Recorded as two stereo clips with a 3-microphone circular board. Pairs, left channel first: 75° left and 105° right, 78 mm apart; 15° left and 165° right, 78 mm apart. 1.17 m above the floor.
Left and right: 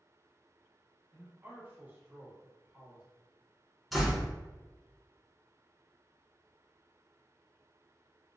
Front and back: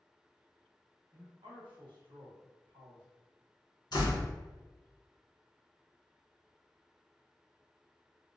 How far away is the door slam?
About 0.9 m.